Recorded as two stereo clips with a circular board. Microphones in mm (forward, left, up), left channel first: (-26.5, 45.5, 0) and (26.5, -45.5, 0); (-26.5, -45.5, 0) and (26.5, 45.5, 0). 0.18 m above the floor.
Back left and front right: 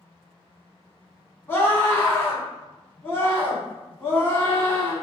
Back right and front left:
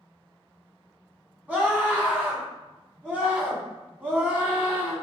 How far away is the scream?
About 1.2 m.